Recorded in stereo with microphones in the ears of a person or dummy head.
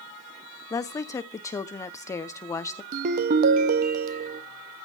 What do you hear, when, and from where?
0.7 s a woman speaking: 20° left (ahead or behind), 0.7 m
2.9 s a ringtone: 50° right (ahead or behind), 0.8 m